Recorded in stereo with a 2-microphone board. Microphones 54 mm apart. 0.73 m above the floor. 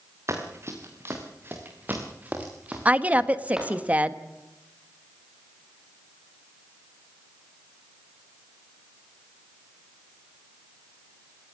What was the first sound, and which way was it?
Running footsteps, 55° right (ahead or behind).